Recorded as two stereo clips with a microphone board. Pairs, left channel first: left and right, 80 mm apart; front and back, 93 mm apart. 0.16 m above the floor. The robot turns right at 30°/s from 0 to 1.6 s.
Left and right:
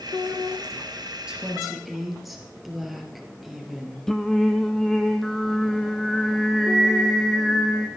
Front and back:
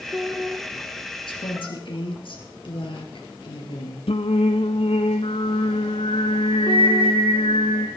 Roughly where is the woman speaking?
Ahead.